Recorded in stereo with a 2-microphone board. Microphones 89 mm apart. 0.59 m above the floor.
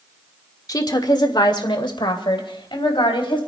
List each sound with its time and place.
0.7 s a woman speaking: 45° left (ahead or behind), 1.2 m; by 3.4 s 75° left (ahead or behind), 3.5 m